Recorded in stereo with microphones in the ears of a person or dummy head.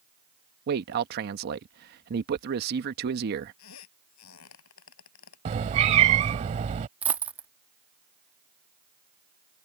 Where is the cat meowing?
35° right (ahead or behind).